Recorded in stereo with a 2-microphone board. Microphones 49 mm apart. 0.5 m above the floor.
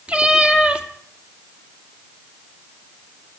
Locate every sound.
0.1 s a cat meowing: 25° right (ahead or behind), 2 m